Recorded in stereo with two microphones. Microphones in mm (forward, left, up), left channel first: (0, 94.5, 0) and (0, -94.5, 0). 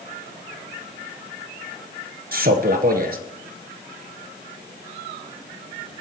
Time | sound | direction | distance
2.3 | a man speaking | 55° right (ahead or behind) | 1.8 m